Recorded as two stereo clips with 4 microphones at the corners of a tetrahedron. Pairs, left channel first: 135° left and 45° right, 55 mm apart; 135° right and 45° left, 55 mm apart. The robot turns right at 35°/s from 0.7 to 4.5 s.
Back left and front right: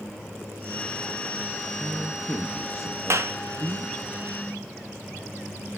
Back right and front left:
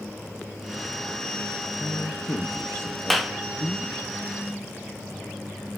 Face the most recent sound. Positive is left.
turn(degrees=0)